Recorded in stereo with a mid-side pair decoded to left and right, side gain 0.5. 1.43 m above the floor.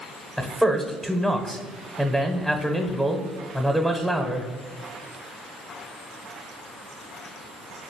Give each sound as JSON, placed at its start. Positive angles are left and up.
{"t": 0.4, "sound": "a man speaking", "azimuth_deg": 0, "distance_m": 0.7}